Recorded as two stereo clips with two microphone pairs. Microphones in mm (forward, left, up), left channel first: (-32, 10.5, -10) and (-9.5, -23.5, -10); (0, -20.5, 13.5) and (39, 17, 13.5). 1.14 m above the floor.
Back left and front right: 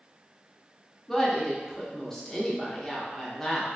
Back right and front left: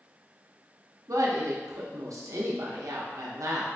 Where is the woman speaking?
45° left, 0.6 m.